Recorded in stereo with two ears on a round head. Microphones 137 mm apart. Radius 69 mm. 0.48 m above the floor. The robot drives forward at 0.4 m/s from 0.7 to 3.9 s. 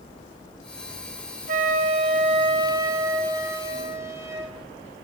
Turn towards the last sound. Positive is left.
turn(degrees=-20)  # may be behind; listen again after turning